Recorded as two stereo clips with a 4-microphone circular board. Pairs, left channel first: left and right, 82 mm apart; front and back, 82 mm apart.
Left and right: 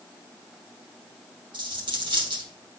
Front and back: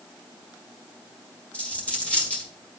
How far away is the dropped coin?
About 2 m.